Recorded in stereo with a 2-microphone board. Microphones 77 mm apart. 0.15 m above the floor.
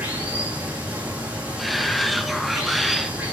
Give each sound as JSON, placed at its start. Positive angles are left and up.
{"t": 0.0, "sound": "running water", "side_deg": -20, "distance_m": 5.5}
{"t": 1.6, "sound": "a shout", "side_deg": 0, "distance_m": 1.1}